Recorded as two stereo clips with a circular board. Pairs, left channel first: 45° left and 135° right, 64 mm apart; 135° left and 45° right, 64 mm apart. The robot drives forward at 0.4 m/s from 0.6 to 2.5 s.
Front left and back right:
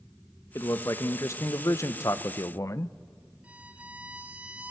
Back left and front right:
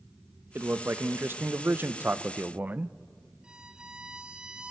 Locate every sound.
0.6 s a man speaking: 5° left, 1.3 m; by 2.9 s 15° left, 0.6 m
3.4 s a violin: 100° right, 1.1 m